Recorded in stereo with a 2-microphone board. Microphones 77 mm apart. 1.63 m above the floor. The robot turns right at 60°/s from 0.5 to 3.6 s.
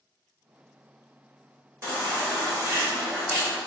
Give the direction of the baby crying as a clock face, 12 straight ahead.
4 o'clock.